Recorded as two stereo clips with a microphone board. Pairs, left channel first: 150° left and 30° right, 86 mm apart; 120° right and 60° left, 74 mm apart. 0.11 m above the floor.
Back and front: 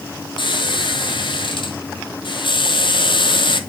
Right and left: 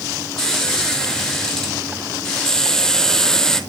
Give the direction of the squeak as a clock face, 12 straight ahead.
7 o'clock.